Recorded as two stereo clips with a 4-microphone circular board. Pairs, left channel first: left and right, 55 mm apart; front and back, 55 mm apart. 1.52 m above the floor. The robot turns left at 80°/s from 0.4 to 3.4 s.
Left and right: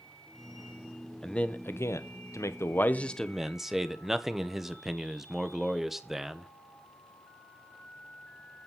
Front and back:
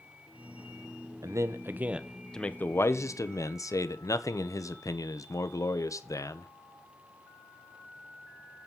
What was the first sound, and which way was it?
A man speaking, 170° left.